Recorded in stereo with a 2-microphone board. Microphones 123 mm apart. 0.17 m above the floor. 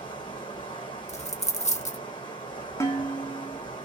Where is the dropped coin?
60° left (ahead or behind), 0.6 m.